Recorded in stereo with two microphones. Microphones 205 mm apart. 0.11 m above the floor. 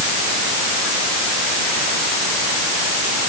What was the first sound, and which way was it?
Only background noise.